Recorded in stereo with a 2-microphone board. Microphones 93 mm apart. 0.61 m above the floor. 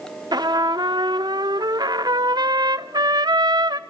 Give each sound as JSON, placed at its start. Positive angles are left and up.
{"t": 0.3, "sound": "a trumpet", "side_deg": -50, "distance_m": 0.5}